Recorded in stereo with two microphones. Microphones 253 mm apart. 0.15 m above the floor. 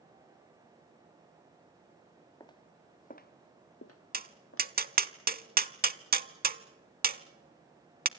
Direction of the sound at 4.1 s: 40° right (ahead or behind).